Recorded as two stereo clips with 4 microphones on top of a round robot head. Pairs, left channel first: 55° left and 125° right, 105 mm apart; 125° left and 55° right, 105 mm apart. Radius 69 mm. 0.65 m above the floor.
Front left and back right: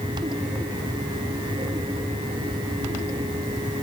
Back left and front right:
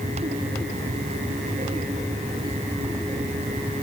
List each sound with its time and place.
Only background noise.